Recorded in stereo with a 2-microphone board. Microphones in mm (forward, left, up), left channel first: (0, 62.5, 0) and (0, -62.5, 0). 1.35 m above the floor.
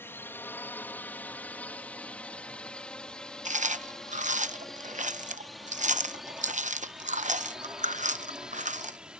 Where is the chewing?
80° right.